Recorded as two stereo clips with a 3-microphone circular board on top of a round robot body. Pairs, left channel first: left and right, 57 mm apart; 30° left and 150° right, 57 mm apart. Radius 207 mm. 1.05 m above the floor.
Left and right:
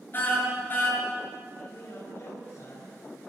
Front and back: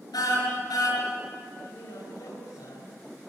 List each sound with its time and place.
0.1 s a car horn: 35° left, 7 m
1.6 s a man speaking: 40° left, 5.5 m